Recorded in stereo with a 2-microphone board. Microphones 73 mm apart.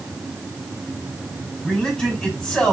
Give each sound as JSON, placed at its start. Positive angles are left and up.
{"t": 1.6, "sound": "a man speaking", "side_deg": 5, "distance_m": 3.0}